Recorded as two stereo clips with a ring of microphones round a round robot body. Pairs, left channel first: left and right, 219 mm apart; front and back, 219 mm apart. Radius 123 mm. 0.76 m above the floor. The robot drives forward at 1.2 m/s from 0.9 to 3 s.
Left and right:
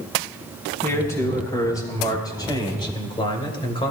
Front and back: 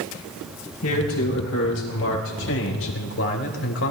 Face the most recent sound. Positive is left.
turn(degrees=25)